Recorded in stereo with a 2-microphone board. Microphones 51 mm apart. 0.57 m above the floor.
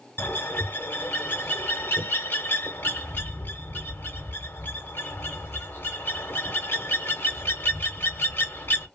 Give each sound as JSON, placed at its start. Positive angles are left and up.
{"t": 0.2, "sound": "a bird", "side_deg": 45, "distance_m": 1.0}